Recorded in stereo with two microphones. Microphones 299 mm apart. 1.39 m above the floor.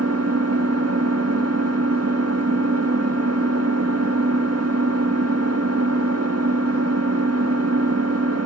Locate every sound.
0.0 s an engine running: 55° right (ahead or behind), 1.6 m